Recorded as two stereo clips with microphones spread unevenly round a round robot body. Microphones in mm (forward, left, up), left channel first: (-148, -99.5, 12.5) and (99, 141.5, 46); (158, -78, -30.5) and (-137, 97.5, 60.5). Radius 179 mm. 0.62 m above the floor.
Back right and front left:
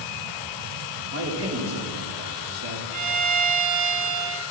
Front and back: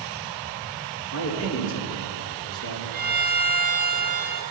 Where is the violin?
85° left, 3 m.